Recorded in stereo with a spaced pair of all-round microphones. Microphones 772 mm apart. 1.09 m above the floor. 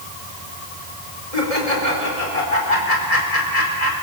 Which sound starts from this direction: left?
Laughter, at 1.3 s.